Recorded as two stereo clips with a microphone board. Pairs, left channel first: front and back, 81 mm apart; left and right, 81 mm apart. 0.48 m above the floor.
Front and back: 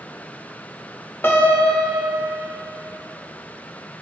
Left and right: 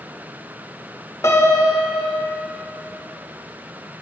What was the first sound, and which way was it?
A piano, 55° left.